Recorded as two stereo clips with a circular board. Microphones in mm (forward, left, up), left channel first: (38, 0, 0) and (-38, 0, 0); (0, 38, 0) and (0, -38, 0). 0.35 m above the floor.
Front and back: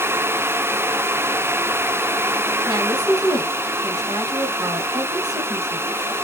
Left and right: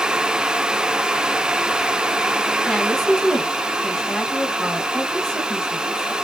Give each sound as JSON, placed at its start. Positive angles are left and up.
{"t": 2.7, "sound": "a woman speaking", "azimuth_deg": 175, "distance_m": 2.0}